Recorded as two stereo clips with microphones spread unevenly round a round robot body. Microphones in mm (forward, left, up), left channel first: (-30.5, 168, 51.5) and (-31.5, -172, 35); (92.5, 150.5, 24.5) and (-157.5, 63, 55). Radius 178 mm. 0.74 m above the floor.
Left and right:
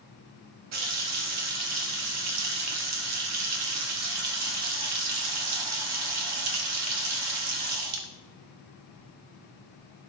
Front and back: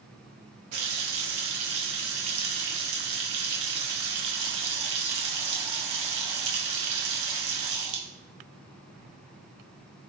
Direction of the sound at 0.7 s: 135° right.